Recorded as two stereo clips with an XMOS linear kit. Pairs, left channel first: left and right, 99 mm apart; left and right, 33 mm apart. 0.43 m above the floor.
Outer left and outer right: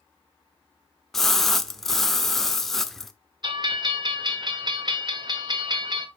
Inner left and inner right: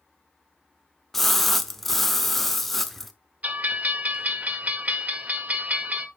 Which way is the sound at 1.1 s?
5° left (ahead or behind).